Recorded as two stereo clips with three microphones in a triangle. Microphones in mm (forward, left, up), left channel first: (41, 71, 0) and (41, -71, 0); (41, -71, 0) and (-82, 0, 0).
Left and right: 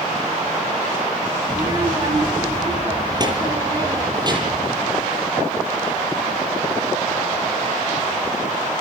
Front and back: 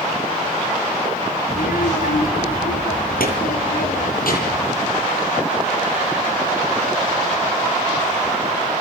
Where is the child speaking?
30° right, 4.5 m.